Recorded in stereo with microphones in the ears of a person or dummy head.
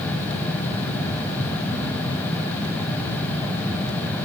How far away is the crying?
I don't hear crying.